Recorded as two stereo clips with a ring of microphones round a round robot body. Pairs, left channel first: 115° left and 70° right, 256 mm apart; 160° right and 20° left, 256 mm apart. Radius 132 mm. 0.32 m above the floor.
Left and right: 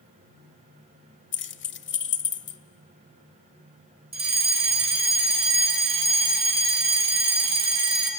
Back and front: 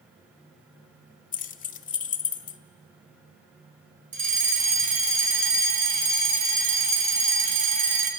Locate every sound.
1.3 s keys jangling: 150° left, 0.9 m
4.1 s a fire alarm: 15° right, 3 m